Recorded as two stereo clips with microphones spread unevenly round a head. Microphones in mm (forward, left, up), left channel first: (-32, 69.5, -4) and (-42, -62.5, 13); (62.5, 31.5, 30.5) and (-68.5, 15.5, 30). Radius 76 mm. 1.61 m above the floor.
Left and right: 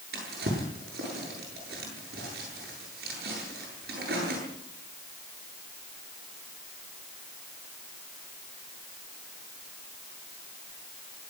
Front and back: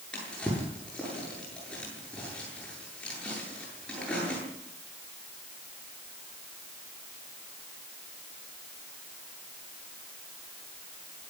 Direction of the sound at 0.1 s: 75° right.